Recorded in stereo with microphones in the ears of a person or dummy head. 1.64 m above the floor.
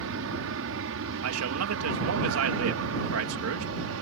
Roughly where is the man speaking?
Right.